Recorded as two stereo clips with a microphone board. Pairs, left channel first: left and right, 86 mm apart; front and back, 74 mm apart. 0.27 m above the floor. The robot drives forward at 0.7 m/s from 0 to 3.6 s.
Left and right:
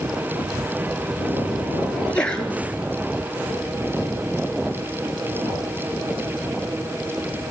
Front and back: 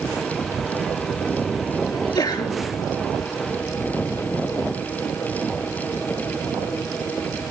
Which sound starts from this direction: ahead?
A sneeze, at 1.9 s.